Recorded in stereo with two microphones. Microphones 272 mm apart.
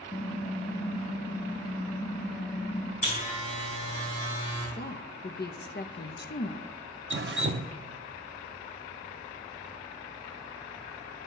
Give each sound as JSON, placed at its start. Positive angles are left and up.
{"t": 0.1, "sound": "typing on a keyboard", "side_deg": 25, "distance_m": 1.2}
{"t": 3.0, "sound": "a buzzer", "side_deg": 30, "distance_m": 5.5}
{"t": 4.8, "sound": "a woman speaking", "side_deg": 40, "distance_m": 0.7}
{"t": 7.1, "sound": "dripping", "side_deg": -45, "distance_m": 0.5}